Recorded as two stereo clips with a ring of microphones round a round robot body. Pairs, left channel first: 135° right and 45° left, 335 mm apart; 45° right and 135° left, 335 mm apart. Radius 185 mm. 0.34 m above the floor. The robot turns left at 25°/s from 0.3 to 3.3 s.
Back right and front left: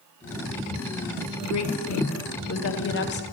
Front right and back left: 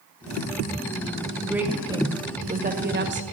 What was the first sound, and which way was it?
A woman speaking, 140° right.